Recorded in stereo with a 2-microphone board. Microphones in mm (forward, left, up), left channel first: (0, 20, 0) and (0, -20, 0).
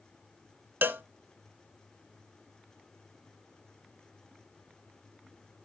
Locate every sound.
0.8 s a cowbell: 60° right (ahead or behind), 0.7 m